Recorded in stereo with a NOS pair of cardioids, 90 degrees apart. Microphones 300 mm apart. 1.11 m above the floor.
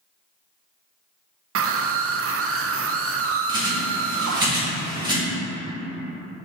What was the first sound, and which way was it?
A scream, 45° right.